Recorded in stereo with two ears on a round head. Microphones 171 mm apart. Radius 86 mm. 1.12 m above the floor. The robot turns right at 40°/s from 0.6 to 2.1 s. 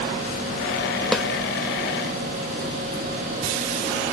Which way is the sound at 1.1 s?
5° left (ahead or behind).